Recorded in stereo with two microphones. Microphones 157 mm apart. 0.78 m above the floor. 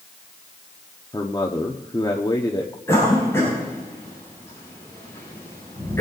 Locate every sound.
1.1 s a man speaking: 25° left (ahead or behind), 1.1 m
2.9 s a cough: 15° left (ahead or behind), 6.5 m